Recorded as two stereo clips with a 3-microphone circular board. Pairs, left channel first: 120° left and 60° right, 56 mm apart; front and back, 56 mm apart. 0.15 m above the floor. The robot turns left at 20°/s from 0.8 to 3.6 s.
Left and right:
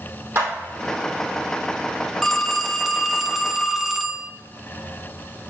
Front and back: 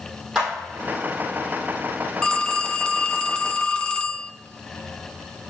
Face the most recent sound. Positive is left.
turn(degrees=10)